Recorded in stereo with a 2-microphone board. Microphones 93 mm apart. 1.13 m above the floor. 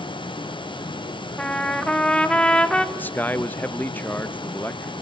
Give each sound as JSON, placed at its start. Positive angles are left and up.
{"t": 1.4, "sound": "a trumpet", "side_deg": 10, "distance_m": 1.9}
{"t": 3.0, "sound": "a man speaking", "side_deg": 20, "distance_m": 1.0}